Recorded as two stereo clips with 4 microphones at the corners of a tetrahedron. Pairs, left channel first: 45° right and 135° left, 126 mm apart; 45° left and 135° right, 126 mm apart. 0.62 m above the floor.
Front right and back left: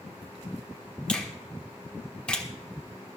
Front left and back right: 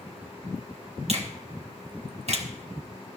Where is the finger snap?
125° right, 1.4 m.